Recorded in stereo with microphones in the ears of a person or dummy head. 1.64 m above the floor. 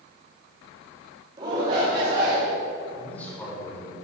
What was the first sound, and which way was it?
A shout, 20° right (ahead or behind).